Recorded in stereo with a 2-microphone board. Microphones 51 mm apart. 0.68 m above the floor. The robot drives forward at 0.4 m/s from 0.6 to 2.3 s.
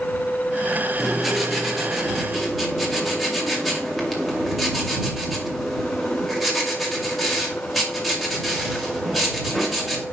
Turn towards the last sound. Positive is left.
turn(degrees=0)  # may be behind; listen again after turning